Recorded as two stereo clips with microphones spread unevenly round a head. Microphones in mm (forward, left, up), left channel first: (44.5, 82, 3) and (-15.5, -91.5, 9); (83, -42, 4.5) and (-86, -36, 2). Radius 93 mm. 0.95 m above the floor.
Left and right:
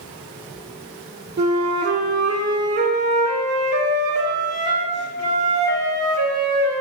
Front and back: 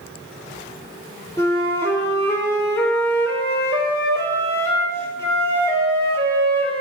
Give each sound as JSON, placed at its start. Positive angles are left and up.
{"t": 1.4, "sound": "a flute", "azimuth_deg": -75, "distance_m": 3.0}